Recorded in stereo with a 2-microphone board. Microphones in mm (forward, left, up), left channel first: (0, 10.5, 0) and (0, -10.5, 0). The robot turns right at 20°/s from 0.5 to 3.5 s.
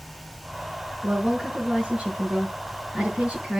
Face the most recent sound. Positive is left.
turn(degrees=-70)